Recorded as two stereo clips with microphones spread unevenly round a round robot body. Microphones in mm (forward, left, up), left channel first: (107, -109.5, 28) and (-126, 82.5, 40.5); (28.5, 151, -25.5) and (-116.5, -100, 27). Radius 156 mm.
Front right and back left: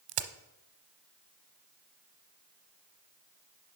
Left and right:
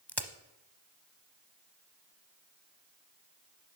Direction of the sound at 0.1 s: 145° left.